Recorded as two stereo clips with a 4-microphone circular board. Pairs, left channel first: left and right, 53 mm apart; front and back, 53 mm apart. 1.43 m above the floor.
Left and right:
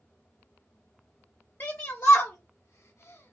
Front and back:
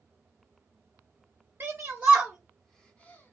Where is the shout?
135° left, 0.8 m; by 3.3 s 50° left, 0.7 m.